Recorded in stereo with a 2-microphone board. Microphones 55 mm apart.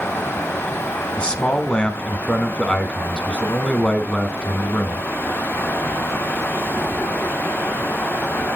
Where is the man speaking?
20° left (ahead or behind), 1.0 m.